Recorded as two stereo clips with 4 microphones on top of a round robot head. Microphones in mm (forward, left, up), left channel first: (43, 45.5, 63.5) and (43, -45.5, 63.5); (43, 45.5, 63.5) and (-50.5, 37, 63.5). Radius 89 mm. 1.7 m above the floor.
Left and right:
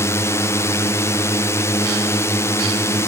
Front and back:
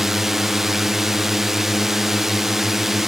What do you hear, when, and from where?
0.0 s a drone: 100° left